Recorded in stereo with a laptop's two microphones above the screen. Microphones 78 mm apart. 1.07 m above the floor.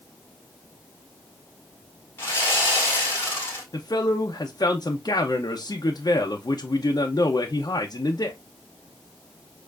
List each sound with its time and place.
2.2 s sawing: 30° left (ahead or behind), 1.6 m
3.7 s a man speaking: 55° left (ahead or behind), 0.5 m